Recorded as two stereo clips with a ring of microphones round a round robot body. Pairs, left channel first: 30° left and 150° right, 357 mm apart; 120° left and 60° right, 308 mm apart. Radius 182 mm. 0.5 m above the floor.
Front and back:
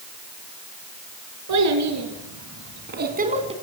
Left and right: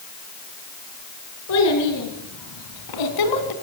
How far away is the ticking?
I don't hear ticking.